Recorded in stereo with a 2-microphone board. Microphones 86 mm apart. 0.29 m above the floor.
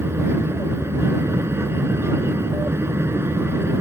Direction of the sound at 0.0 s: 30° right (ahead or behind).